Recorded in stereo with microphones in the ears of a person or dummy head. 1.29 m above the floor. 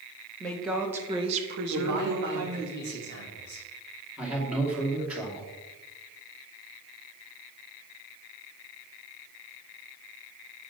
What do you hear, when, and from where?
0.4 s a woman speaking: 15° left (ahead or behind), 1.7 m; by 2.7 s 75° right (ahead or behind), 1.9 m
1.7 s a man speaking: 60° right (ahead or behind), 2.5 m
4.2 s a man speaking: centre (ahead or behind), 2.5 m